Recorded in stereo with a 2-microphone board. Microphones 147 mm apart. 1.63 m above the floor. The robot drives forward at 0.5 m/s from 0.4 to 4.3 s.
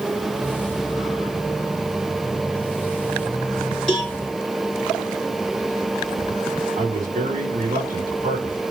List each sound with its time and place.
3.9 s a cowbell: 5° left (ahead or behind), 2.5 m
6.8 s a man speaking: 75° right (ahead or behind), 5 m